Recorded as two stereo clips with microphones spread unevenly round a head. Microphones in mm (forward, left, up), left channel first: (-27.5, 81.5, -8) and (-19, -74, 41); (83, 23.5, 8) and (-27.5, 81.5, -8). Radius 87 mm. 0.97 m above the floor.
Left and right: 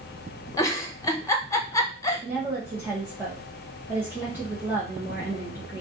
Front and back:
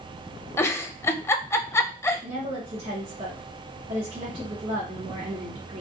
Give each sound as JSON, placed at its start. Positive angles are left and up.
{"t": 0.6, "sound": "a giggle", "azimuth_deg": 45, "distance_m": 0.6}
{"t": 2.2, "sound": "a woman speaking", "azimuth_deg": -175, "distance_m": 1.1}